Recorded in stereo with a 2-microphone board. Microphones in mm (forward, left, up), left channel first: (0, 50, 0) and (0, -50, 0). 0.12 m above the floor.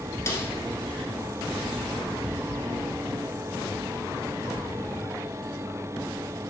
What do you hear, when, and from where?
0.3 s a snare drum: 25° left (ahead or behind), 1.4 m